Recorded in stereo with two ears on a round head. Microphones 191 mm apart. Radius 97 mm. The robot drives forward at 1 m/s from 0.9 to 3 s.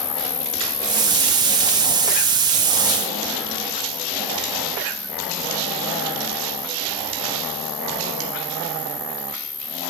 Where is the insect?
20° left (ahead or behind); by 9.9 s 10° left (ahead or behind).